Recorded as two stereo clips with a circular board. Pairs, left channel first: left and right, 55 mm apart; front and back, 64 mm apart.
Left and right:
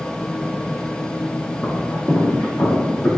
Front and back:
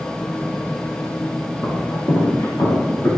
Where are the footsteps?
40° left, 5.5 m; by 3.1 s 45° left, 8 m.